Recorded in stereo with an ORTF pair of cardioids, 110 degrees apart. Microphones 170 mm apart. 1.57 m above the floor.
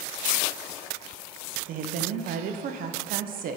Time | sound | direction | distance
1.7 | a woman speaking | 60° right | 0.6 m